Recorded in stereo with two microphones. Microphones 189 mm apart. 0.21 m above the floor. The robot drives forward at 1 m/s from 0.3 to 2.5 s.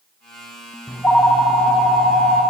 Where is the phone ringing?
10° left (ahead or behind), 0.9 m; by 2.4 s 5° left (ahead or behind), 2 m.